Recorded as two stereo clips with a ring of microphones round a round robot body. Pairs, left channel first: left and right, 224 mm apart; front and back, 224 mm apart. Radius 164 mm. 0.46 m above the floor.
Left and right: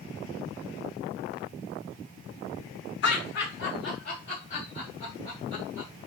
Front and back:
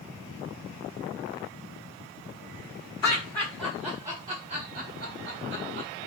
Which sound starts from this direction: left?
Laughter, at 3.0 s.